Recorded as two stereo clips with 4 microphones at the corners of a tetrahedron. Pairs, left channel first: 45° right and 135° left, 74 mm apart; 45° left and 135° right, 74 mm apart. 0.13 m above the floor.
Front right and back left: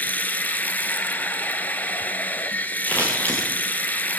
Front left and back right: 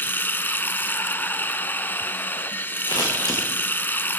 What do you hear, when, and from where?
0.0 s running water: 5° left, 1.1 m
2.9 s scissors: 25° left, 7.5 m